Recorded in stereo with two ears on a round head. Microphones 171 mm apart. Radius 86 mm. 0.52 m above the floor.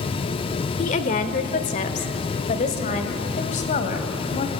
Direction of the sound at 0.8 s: 40° left (ahead or behind).